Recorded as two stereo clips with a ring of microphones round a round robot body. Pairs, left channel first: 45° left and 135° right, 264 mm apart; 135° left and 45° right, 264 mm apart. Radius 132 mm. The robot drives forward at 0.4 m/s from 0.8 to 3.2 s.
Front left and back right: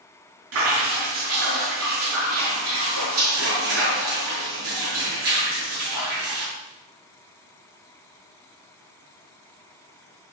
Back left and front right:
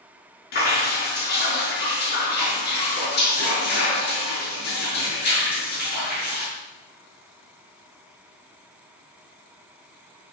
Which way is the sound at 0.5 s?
170° right.